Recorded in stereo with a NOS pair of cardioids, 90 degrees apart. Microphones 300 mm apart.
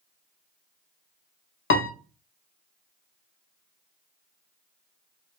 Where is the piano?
40° left, 0.7 m.